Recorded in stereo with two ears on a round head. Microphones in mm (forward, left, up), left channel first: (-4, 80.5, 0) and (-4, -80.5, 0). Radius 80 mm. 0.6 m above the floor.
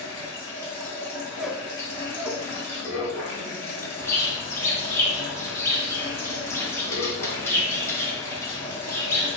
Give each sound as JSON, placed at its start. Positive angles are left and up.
{"t": 0.0, "sound": "running water", "side_deg": 15, "distance_m": 1.2}
{"t": 1.4, "sound": "a squeak", "side_deg": 0, "distance_m": 0.5}
{"t": 4.0, "sound": "a bird", "side_deg": 15, "distance_m": 0.6}